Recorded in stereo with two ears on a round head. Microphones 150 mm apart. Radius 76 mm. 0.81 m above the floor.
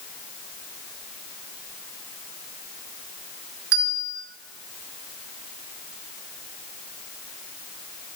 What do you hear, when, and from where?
3.7 s a bell: 70° right (ahead or behind), 1.4 m